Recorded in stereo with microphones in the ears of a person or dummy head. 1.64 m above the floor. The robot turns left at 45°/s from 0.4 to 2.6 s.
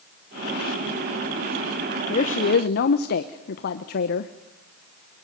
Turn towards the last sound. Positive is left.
turn(degrees=45)  # may be behind; listen again after turning